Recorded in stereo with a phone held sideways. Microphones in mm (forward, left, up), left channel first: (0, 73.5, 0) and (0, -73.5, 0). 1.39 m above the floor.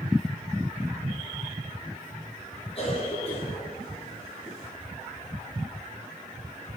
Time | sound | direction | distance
2.8 | a cough | 40° left (ahead or behind) | 7 m